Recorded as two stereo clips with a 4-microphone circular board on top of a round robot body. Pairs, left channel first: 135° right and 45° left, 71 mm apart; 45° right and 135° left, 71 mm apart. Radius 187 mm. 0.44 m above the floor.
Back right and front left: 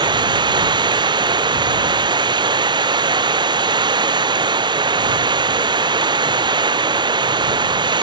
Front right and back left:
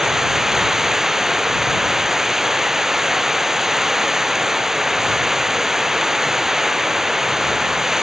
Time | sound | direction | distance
0.0 | running water | 50° left | ?